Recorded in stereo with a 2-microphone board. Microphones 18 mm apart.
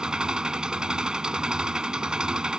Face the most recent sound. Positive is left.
turn(degrees=-50)  # may be behind; listen again after turning